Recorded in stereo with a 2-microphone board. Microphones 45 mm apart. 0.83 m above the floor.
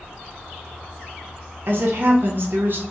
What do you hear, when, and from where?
1.7 s a woman speaking: 50° right (ahead or behind), 0.6 m